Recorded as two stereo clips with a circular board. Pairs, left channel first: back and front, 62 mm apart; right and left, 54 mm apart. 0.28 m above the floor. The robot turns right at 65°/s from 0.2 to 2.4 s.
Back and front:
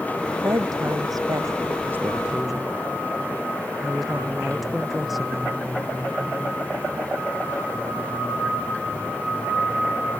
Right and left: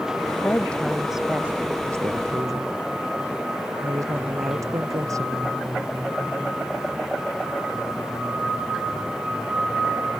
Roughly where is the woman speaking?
Ahead right.